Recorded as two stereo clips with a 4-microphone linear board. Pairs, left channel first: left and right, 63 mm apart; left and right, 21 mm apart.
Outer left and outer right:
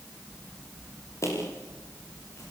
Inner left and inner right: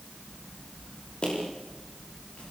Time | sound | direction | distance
1.2 | footsteps | 45° left (ahead or behind) | 9.5 m